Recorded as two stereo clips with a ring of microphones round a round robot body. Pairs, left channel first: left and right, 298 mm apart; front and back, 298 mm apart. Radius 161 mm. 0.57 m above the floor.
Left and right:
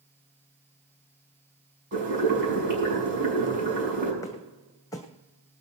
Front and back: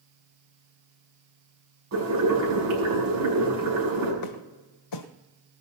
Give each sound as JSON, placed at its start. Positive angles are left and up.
{"t": 1.9, "sound": "boiling", "azimuth_deg": -140, "distance_m": 6.0}
{"t": 4.2, "sound": "footsteps", "azimuth_deg": 10, "distance_m": 1.5}